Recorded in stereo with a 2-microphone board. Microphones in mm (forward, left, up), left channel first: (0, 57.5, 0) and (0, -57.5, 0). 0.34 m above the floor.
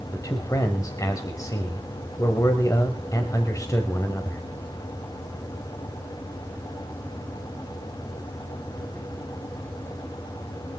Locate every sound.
0.1 s a man speaking: 30° left (ahead or behind), 1.2 m